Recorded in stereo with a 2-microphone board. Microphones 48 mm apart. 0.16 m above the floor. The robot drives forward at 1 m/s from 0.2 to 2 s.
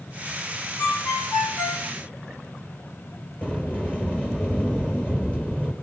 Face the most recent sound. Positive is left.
turn(degrees=30)  # may be behind; listen again after turning